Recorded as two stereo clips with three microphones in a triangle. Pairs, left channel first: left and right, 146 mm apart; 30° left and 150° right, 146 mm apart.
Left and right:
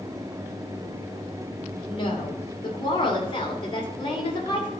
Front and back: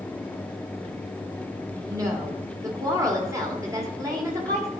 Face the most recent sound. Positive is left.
turn(degrees=145)